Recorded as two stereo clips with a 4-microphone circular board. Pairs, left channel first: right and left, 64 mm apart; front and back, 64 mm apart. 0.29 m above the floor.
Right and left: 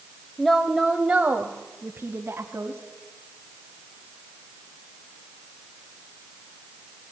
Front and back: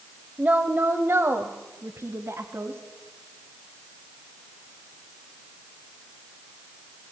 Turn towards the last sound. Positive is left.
turn(degrees=135)